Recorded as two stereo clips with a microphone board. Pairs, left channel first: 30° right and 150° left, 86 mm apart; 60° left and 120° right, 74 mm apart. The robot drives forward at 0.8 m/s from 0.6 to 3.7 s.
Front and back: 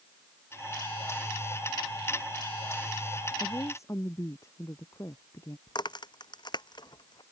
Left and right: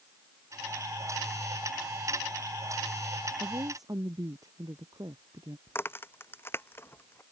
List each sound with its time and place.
3.4 s a woman speaking: 85° right
5.7 s a crack: straight ahead